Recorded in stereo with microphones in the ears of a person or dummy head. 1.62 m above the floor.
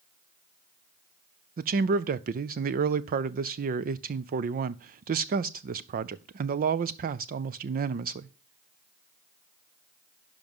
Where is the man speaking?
40° right (ahead or behind), 0.5 m.